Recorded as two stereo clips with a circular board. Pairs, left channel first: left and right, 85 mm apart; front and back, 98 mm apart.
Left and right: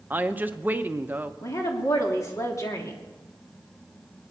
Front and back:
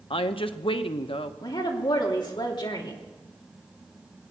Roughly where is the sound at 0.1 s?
Ahead.